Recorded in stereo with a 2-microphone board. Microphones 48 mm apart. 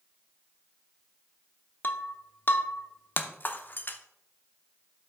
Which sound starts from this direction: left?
Breaking glass, at 1.8 s.